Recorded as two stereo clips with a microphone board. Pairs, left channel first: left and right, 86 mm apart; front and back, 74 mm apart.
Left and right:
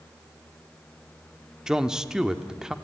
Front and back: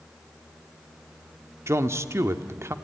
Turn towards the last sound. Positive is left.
turn(degrees=-170)